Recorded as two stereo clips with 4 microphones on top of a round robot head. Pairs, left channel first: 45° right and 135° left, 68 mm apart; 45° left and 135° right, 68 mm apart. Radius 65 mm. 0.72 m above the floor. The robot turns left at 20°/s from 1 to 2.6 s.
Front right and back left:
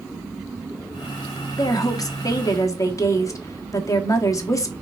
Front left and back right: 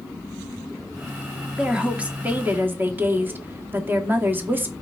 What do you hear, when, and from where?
1.6 s a woman speaking: 55° right, 1.8 m; by 4.7 s 75° right, 1.8 m